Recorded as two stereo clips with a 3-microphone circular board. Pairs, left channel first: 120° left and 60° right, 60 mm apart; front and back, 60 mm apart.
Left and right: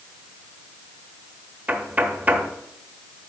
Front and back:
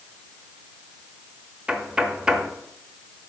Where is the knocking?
110° right, 0.9 m.